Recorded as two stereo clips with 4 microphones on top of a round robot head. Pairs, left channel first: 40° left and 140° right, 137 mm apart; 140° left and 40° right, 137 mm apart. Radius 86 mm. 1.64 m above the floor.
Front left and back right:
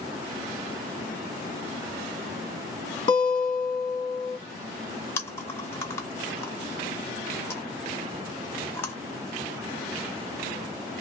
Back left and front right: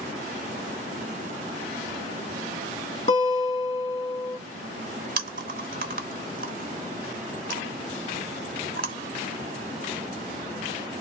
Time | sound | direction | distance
3.1 | a guitar | 95° left | 1.3 m
5.2 | chewing | 30° right | 0.5 m